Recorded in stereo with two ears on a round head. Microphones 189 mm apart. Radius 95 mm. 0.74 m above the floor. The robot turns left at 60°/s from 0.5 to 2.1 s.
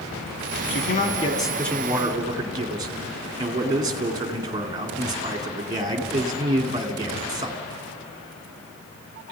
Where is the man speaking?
60° left, 2.5 m; by 7.6 s 20° right, 2.5 m.